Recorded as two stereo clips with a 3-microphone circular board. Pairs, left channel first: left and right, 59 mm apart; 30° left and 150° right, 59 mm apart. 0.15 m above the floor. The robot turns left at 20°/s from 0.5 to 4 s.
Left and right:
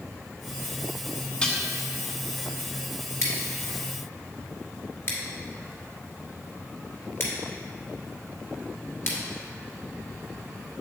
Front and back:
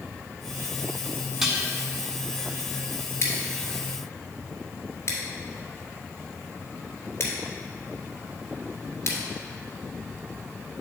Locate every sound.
1.4 s dishes clattering: 135° left, 0.8 m; by 1.6 s 130° left, 0.8 m
3.2 s scissors: 70° left, 1.9 m; by 9.2 s 55° left, 1.9 m